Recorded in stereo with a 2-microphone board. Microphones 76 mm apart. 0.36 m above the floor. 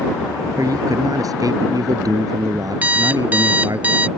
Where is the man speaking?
55° right (ahead or behind).